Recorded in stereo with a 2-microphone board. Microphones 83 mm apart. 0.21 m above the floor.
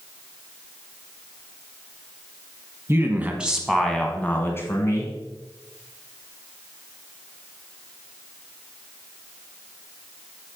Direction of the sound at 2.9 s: 30° right (ahead or behind).